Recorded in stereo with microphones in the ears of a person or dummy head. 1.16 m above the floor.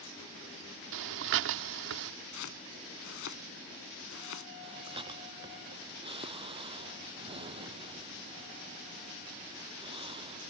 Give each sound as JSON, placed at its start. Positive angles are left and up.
{"t": 0.9, "sound": "breathing", "side_deg": -70}
{"t": 2.3, "sound": "chopping", "side_deg": 70}
{"t": 4.6, "sound": "breathing", "side_deg": -25}